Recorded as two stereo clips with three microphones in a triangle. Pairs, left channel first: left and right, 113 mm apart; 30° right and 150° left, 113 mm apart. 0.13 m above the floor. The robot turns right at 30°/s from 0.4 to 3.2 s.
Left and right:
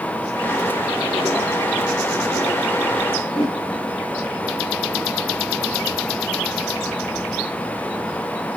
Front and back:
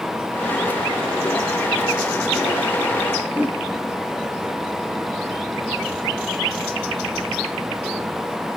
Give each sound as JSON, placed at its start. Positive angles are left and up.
{"t": 3.3, "sound": "a whoosh", "azimuth_deg": 75, "distance_m": 2.5}